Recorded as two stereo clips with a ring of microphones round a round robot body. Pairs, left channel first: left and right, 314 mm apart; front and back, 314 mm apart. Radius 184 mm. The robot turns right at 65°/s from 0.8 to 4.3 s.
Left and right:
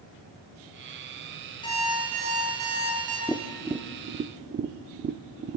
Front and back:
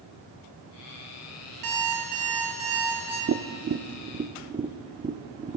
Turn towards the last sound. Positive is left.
turn(degrees=-120)